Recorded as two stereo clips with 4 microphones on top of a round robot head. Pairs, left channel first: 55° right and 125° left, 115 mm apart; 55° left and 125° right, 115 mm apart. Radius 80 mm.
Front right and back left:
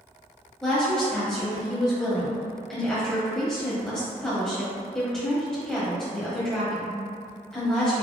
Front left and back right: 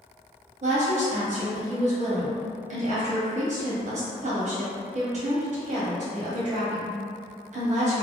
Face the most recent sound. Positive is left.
turn(degrees=-140)